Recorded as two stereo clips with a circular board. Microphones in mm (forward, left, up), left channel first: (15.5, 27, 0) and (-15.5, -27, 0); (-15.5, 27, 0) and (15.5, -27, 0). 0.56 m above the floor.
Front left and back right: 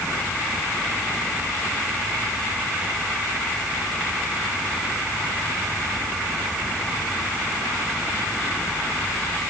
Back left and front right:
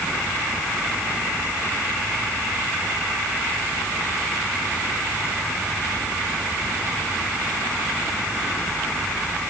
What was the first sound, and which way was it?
Only background noise.